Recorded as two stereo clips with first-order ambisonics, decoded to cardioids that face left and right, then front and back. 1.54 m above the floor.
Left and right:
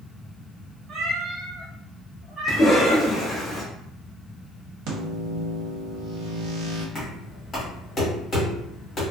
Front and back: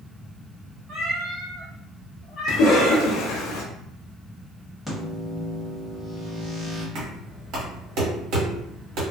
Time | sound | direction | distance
0.9 | a cat meowing | 135° right | 1.0 m
2.5 | a cough | 15° left | 0.5 m
4.9 | a microwave | 90° right | 0.9 m
7.0 | knocking | 155° left | 1.4 m